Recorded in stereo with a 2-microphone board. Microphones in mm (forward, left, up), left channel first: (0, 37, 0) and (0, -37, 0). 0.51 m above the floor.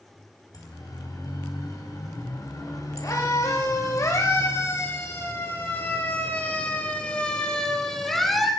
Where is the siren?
60° left (ahead or behind), 5 m; by 8.5 s centre (ahead or behind), 2.5 m.